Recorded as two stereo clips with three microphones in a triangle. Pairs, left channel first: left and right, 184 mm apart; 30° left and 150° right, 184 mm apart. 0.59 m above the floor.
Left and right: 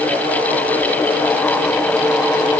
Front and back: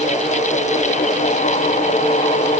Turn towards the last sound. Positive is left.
No sound to turn to.